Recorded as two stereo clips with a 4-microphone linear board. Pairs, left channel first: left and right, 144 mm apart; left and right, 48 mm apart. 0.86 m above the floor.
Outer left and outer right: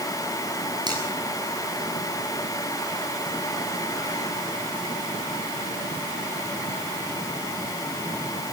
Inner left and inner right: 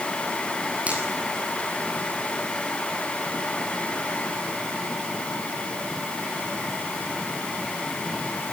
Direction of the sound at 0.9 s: 30° right (ahead or behind).